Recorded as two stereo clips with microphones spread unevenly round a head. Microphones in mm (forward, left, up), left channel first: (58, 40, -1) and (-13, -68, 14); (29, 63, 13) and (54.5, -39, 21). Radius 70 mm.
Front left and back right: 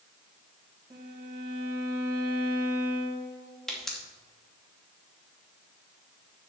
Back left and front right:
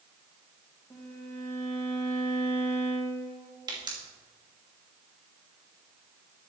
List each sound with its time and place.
0.9 s a violin: 175° left, 2 m
3.7 s a pop: 30° right, 2.5 m